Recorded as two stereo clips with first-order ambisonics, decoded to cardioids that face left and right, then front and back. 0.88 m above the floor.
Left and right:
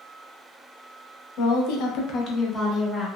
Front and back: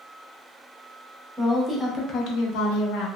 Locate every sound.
1.4 s a woman speaking: 110° left, 0.8 m; by 3.1 s 5° left, 1.1 m